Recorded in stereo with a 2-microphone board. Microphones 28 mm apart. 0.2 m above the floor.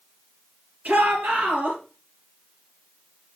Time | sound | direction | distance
0.8 | a shout | 70° right (ahead or behind) | 3.5 m